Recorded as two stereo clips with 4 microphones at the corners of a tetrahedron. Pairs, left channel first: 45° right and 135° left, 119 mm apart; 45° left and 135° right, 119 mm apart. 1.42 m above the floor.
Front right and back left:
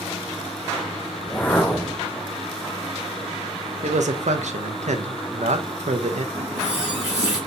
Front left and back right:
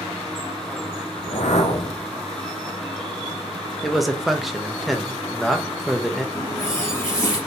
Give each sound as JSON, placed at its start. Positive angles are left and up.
{"t": 1.2, "sound": "a whoosh", "azimuth_deg": 30, "distance_m": 0.7}
{"t": 3.8, "sound": "a man speaking", "azimuth_deg": 135, "distance_m": 0.5}
{"t": 6.3, "sound": "a running tap", "azimuth_deg": 105, "distance_m": 2.0}